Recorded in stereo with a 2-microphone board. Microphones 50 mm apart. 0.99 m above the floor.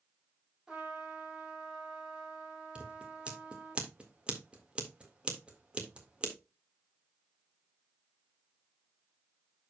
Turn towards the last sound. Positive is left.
turn(degrees=-25)  # may be behind; listen again after turning